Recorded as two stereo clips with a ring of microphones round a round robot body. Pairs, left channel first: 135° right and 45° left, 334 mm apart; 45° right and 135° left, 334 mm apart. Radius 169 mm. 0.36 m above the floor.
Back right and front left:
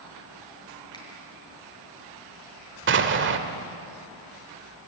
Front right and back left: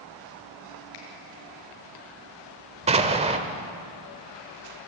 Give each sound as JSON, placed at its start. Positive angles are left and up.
{"t": 0.9, "sound": "a finger snap", "azimuth_deg": -55, "distance_m": 6.5}
{"t": 2.9, "sound": "an explosion", "azimuth_deg": 75, "distance_m": 1.5}